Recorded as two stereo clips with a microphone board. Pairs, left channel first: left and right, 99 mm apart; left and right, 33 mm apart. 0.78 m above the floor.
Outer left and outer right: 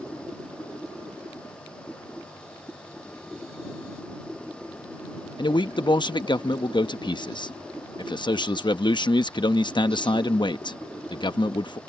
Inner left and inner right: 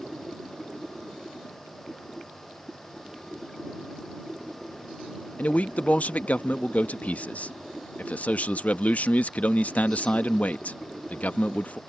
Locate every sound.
5.4 s a man speaking: 45° left (ahead or behind)